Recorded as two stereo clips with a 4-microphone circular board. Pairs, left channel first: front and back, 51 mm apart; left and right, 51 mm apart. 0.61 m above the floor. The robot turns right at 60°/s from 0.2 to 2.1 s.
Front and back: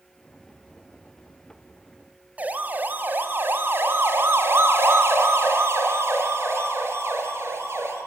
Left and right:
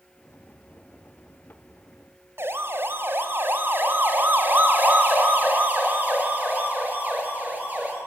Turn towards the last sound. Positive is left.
turn(degrees=-145)